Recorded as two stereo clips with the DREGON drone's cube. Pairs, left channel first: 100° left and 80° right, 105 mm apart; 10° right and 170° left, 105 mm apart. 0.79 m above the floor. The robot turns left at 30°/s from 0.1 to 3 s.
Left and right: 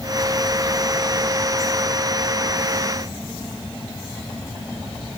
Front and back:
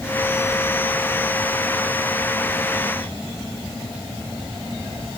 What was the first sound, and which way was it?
Only background noise.